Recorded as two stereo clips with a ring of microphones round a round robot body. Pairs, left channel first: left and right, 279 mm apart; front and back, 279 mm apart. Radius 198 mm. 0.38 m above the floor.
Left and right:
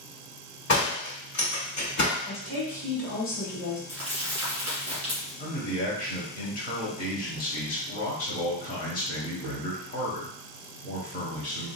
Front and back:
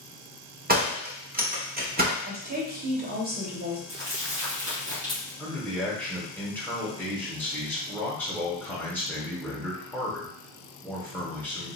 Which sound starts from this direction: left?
A man speaking, at 5.4 s.